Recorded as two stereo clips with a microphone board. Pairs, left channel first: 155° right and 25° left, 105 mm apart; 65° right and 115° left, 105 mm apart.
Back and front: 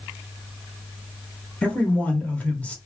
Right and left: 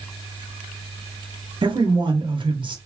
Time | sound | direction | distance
1.6 | a man speaking | 130° left | 0.8 m